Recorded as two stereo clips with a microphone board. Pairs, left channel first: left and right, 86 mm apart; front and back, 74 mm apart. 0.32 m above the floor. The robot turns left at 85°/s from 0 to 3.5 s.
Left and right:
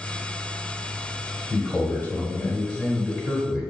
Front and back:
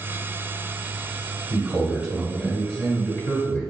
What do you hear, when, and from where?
1.5 s a man speaking: 150° left, 1.6 m; by 3.7 s 20° right, 1.6 m